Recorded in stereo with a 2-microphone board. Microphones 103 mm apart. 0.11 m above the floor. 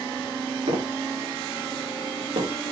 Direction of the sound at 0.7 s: 90° right.